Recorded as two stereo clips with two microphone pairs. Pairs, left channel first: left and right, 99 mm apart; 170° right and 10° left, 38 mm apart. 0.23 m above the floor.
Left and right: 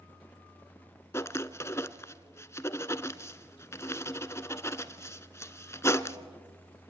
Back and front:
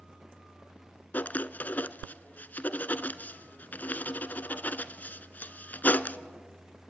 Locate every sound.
1.1 s writing: 155° left, 0.9 m